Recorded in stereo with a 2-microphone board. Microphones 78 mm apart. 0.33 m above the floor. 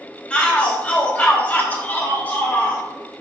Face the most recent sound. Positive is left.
turn(degrees=25)  # may be behind; listen again after turning